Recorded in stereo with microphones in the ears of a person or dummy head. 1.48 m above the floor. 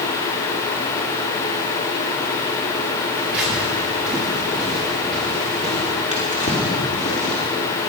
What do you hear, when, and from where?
3.1 s footsteps: 10° right (ahead or behind), 7 m; by 5.9 s centre (ahead or behind), 9 m
6.1 s a drawer: 35° left (ahead or behind), 2.5 m